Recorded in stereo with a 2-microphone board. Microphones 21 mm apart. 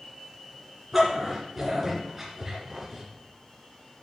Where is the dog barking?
10° right (ahead or behind), 2.5 m.